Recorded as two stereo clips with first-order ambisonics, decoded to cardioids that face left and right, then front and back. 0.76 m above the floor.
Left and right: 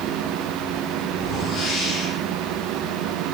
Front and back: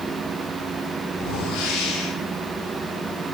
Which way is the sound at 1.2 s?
30° left.